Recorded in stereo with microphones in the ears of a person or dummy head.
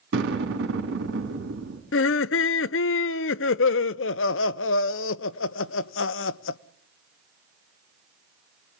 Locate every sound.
0.1 s an explosion: 65° right (ahead or behind), 4 m
1.9 s laughter: 65° left (ahead or behind), 0.7 m